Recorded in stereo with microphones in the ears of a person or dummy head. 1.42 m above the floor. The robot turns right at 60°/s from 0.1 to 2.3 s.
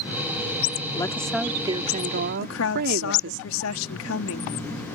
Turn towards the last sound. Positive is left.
turn(degrees=75)  # may be behind; listen again after turning